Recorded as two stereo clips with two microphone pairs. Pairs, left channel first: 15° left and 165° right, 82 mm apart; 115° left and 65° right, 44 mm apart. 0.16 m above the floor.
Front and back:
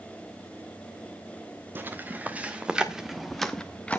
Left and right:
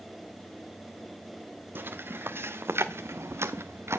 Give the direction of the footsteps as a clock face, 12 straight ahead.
3 o'clock.